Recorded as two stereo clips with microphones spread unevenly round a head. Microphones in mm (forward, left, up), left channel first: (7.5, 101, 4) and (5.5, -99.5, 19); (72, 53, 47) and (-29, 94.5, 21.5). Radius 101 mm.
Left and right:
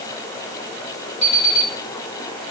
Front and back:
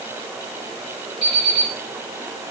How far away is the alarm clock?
About 1.4 m.